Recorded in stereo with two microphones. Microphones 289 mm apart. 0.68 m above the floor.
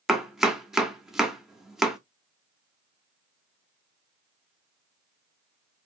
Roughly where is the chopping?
Centre.